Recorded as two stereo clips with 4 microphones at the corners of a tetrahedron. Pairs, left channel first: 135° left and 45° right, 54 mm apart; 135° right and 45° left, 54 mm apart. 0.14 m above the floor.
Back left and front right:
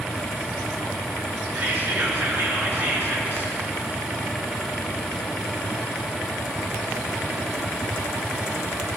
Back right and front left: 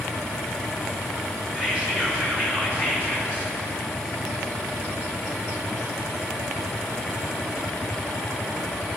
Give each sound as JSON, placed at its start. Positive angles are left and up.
{"t": 1.6, "sound": "whispering", "azimuth_deg": -15, "distance_m": 1.9}